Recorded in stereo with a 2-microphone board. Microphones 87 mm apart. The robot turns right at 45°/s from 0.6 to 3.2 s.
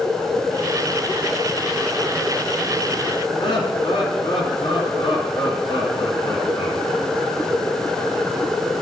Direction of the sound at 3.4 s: 65° left (ahead or behind).